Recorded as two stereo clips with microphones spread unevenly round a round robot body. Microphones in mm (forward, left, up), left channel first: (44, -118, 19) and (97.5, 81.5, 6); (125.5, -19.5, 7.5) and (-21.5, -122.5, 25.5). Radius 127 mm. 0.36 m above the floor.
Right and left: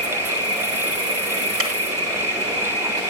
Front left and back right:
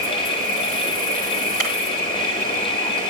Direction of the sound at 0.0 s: 75° left.